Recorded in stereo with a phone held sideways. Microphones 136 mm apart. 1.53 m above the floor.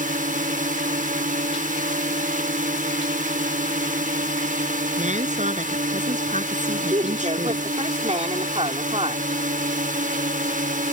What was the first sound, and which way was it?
A drone, 80° right.